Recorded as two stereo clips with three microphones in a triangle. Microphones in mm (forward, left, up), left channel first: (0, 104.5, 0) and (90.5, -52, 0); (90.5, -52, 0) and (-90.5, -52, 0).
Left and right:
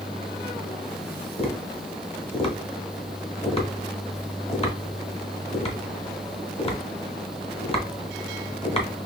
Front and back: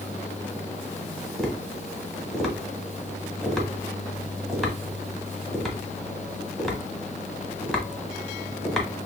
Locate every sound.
1.4 s tapping: 90° left, 1.1 m